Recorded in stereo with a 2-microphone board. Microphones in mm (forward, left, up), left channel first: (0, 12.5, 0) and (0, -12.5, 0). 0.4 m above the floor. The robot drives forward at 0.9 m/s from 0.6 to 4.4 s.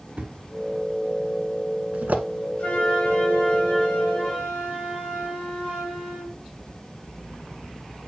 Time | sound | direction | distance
0.2 | a thud | 35° right (ahead or behind) | 2.5 m
2.6 | a flute | 55° left (ahead or behind) | 2.5 m